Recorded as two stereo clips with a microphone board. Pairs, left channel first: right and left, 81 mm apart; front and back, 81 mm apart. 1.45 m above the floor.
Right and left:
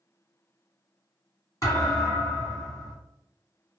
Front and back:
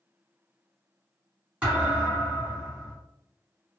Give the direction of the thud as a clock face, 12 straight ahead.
4 o'clock.